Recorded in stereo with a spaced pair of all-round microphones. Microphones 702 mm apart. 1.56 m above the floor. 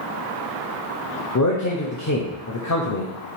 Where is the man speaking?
30° left (ahead or behind), 0.6 m.